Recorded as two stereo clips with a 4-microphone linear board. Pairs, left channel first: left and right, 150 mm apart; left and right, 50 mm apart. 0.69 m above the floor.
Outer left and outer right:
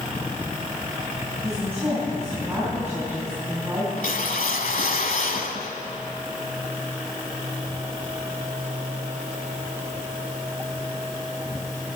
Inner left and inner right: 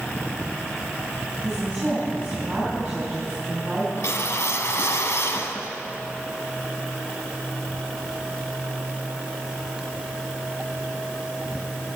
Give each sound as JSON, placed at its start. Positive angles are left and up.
{"t": 1.4, "sound": "a woman speaking", "side_deg": -15, "distance_m": 5.0}
{"t": 4.0, "sound": "a whoosh", "side_deg": 70, "distance_m": 1.2}